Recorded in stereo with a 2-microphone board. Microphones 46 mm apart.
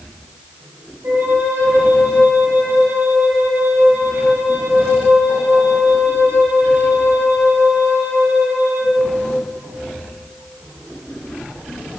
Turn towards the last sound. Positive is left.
turn(degrees=-55)  # may be behind; listen again after turning